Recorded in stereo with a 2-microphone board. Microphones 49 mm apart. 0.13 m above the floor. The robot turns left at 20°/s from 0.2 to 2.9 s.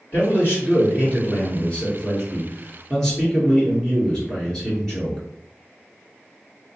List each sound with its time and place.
0.1 s a man speaking: 65° left, 1.9 m; by 5.2 s 10° left, 1.9 m